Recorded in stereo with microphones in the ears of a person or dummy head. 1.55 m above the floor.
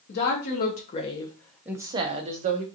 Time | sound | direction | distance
0.1 | a woman speaking | 60° left (ahead or behind) | 0.9 m